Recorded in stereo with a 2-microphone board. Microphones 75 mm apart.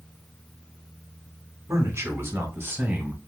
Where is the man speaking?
40° right (ahead or behind), 1.4 m; by 3.2 s 20° right (ahead or behind), 1.3 m.